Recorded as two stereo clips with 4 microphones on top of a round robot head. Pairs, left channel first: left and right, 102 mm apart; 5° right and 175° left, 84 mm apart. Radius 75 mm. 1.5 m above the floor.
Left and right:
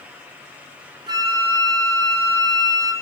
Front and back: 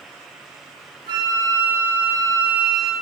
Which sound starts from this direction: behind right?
A flute, at 1.1 s.